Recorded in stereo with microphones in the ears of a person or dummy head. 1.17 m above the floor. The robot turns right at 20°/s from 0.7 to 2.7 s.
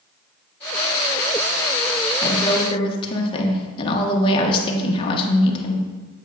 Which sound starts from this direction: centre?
A woman speaking, at 2.2 s.